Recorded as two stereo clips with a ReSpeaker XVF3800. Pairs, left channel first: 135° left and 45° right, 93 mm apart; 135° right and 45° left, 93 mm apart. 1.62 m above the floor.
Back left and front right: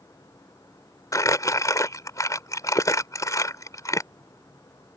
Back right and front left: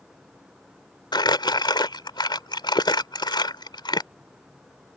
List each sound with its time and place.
1.1 s crumpling: 170° right